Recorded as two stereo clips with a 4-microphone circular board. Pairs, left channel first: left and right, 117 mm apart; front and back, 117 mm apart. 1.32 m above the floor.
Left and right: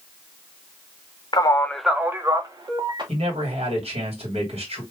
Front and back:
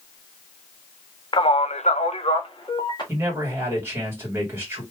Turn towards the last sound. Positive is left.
turn(degrees=-110)